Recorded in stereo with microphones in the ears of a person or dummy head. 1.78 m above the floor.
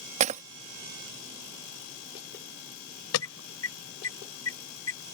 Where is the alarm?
80° left.